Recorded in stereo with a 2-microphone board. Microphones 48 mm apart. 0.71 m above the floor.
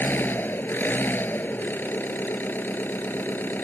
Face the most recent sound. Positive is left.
turn(degrees=40)  # may be behind; listen again after turning